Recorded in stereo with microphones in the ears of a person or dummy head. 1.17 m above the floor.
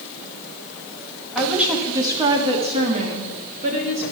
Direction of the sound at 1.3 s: Centre (ahead or behind).